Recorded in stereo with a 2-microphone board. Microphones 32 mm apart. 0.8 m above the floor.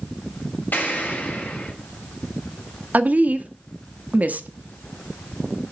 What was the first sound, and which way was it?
An explosion, 75° left (ahead or behind).